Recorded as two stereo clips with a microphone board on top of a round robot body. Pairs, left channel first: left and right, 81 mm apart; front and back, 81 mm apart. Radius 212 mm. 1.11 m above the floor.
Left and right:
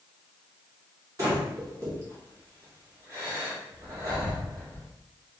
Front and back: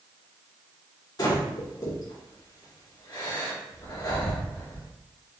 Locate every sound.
1.2 s breathing: 40° right, 2.0 m